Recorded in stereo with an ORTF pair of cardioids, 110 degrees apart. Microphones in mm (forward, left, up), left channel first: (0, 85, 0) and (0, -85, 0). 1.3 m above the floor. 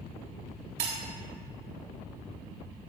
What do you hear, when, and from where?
0.8 s breaking glass: 70° right, 2 m